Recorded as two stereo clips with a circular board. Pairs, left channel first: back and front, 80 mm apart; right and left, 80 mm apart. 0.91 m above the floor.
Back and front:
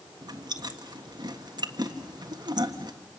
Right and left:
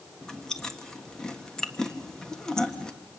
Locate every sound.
0.2 s chewing: 10° right, 1.5 m